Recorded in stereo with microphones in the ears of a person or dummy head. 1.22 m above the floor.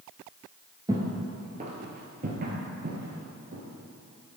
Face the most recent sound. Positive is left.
turn(degrees=-55)  # may be behind; listen again after turning